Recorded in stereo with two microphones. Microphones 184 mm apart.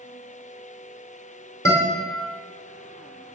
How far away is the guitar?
About 2 m.